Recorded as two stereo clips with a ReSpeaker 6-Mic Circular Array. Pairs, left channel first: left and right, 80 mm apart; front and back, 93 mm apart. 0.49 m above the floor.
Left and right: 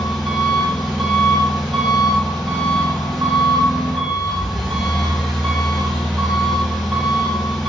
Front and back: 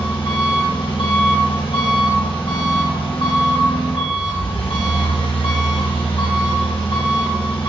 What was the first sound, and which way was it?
An engine running, 5° left.